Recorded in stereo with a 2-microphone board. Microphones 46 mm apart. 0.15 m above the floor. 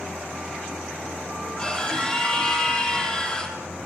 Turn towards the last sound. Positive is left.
turn(degrees=20)  # may be behind; listen again after turning